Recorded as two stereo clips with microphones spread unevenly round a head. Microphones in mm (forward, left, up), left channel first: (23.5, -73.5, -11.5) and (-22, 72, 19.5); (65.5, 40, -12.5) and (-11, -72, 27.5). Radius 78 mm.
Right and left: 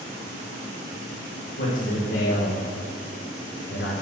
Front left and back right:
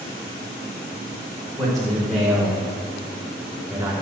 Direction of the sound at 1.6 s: 35° right.